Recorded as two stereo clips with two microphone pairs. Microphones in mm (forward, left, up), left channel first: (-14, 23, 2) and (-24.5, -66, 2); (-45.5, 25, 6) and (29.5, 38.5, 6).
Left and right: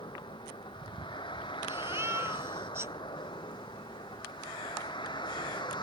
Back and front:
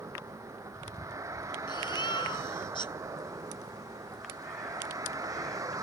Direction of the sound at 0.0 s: 60° left.